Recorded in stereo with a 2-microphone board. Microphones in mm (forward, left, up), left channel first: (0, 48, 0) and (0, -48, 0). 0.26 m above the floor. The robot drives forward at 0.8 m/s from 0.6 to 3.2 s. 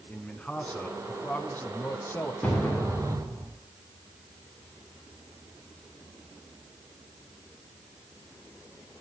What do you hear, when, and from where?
0.1 s a man speaking: 15° left (ahead or behind), 2.5 m; by 2.3 s 25° left (ahead or behind), 1.3 m
2.4 s an explosion: 15° left (ahead or behind), 4 m